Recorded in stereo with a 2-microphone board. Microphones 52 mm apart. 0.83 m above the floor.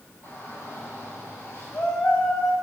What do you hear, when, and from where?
0.2 s a shout: 50° left (ahead or behind), 5 m